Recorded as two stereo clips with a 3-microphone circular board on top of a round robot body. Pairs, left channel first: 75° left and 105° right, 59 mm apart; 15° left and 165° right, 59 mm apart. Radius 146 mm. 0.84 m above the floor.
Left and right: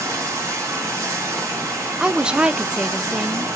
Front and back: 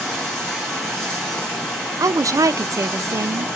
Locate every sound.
0.0 s running water: 70° right, 1.5 m
2.0 s a woman speaking: straight behind, 0.6 m